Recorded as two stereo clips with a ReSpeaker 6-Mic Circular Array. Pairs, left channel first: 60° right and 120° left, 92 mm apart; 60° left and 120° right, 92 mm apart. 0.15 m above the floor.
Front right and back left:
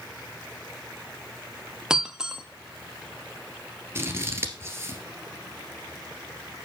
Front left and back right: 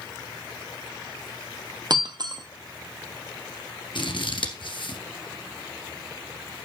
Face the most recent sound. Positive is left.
turn(degrees=65)